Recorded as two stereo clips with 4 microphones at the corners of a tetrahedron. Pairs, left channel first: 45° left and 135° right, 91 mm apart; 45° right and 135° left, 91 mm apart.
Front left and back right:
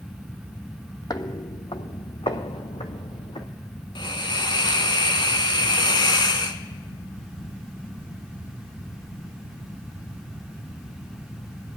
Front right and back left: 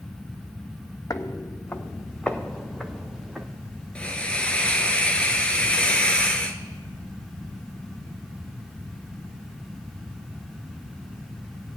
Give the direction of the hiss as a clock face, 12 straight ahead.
11 o'clock.